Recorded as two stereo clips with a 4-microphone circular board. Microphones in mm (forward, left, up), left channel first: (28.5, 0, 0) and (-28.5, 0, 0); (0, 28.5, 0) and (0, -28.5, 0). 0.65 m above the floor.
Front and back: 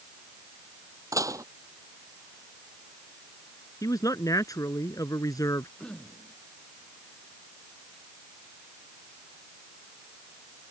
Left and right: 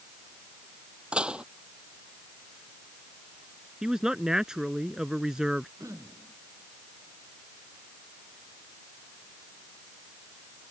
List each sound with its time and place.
1.1 s dishes clattering: 160° right
3.8 s a man speaking: 10° right
5.8 s throat clearing: 75° right